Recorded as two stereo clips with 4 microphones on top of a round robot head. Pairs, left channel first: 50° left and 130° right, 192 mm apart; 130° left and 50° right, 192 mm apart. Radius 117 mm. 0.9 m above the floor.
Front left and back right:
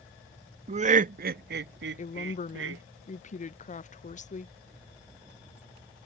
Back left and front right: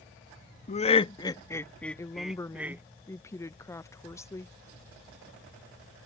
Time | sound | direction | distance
0.7 | laughter | straight behind | ?
2.0 | a woman speaking | 60° left | ?